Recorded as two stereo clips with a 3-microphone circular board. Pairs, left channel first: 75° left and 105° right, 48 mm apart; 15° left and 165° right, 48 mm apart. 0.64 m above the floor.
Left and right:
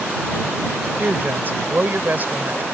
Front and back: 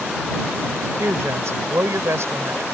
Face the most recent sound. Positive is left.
turn(degrees=-155)